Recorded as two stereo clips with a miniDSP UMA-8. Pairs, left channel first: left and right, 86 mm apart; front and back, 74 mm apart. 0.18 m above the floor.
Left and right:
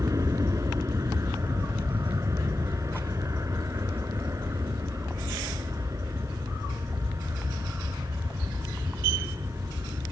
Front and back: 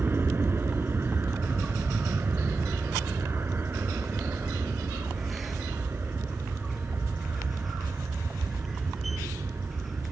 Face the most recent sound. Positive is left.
turn(degrees=-130)